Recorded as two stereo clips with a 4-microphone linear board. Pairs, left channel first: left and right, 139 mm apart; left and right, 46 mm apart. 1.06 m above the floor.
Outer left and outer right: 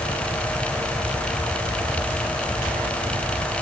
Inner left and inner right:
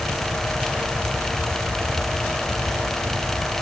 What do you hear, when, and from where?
Only background noise.